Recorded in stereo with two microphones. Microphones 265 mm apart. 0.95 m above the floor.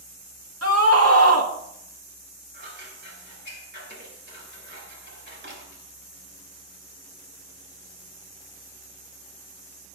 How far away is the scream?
About 1.7 m.